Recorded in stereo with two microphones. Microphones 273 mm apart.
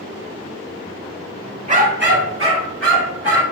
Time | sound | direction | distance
1.7 | a dog barking | 25° right (ahead or behind) | 0.8 m